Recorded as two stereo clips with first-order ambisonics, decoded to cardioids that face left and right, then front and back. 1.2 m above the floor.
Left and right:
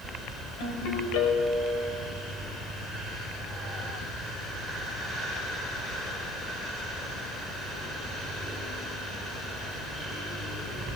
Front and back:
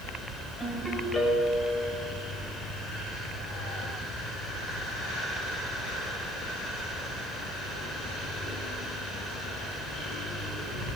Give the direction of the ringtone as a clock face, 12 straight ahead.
9 o'clock.